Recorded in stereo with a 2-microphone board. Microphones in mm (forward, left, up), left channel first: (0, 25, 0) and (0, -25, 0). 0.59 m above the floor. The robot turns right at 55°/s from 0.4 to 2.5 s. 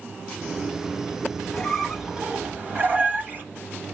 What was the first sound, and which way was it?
A squeak, 165° left.